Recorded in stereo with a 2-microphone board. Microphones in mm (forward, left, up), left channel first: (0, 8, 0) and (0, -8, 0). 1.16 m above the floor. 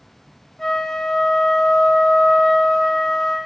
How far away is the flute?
About 0.5 m.